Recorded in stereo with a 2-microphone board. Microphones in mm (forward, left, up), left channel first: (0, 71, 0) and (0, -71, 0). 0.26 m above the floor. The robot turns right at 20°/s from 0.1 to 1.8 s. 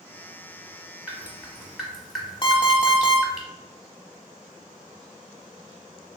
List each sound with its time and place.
1.1 s dripping: 10° right (ahead or behind), 0.8 m; by 3.4 s centre (ahead or behind), 0.8 m
2.4 s an alarm clock: 35° left (ahead or behind), 0.6 m